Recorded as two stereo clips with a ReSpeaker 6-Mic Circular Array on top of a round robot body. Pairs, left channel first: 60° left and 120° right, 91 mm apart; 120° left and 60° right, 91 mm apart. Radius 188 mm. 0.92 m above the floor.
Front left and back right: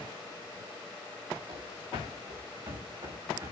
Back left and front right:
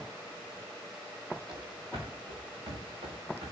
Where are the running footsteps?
90° right, 7 m; by 3.5 s 80° right, 6.5 m.